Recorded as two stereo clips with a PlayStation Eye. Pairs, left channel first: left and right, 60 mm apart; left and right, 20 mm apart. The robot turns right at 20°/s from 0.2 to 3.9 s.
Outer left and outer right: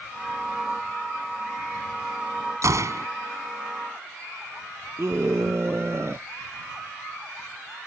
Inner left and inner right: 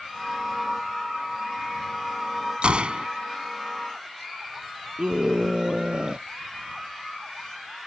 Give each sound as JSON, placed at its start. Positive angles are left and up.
{"t": 2.6, "sound": "a gunshot", "side_deg": -60}
{"t": 5.0, "sound": "a scream", "side_deg": -50}